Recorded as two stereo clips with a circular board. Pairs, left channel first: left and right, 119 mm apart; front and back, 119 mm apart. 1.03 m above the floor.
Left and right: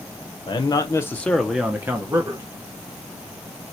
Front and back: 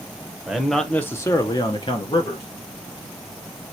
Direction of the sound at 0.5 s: 100° left.